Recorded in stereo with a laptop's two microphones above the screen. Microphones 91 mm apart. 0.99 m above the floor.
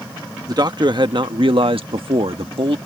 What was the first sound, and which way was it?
A man speaking, 45° right (ahead or behind).